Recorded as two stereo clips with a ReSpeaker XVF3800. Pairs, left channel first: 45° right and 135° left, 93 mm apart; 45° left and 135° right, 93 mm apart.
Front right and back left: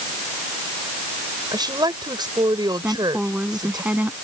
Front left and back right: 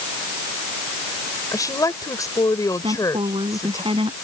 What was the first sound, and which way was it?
A woman speaking, 95° left.